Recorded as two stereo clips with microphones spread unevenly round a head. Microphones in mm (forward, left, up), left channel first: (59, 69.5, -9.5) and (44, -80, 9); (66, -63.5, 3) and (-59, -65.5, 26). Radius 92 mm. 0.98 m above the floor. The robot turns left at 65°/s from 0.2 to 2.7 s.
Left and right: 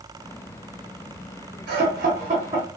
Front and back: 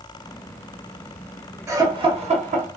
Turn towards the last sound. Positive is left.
turn(degrees=180)